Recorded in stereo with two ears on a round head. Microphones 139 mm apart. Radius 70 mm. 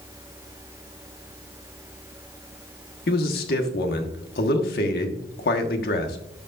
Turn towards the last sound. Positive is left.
turn(degrees=65)  # may be behind; listen again after turning